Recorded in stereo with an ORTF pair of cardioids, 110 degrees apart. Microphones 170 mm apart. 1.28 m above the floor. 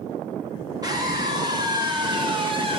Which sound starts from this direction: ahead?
A scream, at 0.8 s.